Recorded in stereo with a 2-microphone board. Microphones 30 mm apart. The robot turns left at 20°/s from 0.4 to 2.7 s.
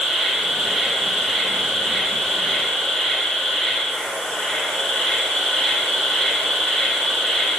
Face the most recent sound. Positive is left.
turn(degrees=135)